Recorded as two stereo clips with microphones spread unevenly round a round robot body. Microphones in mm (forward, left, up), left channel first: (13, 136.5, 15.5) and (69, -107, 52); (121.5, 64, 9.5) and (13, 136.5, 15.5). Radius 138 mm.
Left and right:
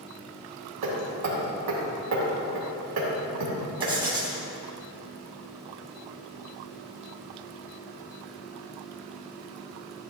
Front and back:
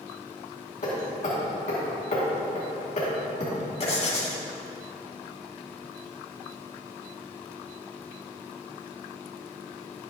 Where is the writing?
5° right, 2.5 m.